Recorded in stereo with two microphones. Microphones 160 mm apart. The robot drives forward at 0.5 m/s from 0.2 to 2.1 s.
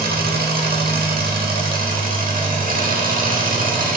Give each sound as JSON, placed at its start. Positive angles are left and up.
{"t": 0.0, "sound": "an engine running", "side_deg": -75, "distance_m": 1.4}